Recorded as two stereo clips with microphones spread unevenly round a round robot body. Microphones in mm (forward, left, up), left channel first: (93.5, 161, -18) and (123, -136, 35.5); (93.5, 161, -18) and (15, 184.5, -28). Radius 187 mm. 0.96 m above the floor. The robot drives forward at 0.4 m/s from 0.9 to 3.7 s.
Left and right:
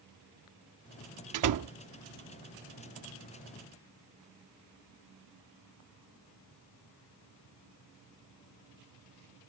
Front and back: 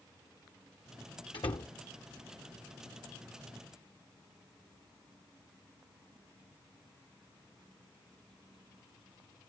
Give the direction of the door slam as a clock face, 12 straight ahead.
2 o'clock.